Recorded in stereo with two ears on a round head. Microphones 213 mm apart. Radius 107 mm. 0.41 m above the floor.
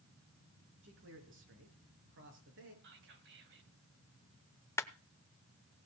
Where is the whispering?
50° right (ahead or behind), 3 m.